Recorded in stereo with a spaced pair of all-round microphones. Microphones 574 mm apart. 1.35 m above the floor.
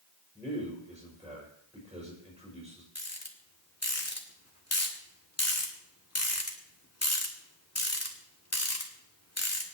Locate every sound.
0.3 s a man speaking: 5° right (ahead or behind), 5.5 m
3.0 s a rattle: 25° left (ahead or behind), 2.0 m